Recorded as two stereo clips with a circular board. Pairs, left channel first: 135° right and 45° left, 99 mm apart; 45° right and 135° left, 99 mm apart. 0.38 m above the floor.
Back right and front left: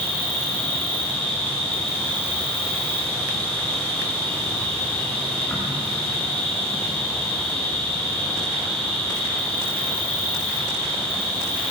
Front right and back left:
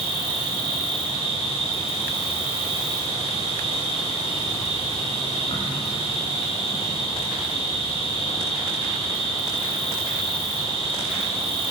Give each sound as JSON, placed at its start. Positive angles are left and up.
{"t": 0.0, "sound": "an insect", "azimuth_deg": -55, "distance_m": 6.5}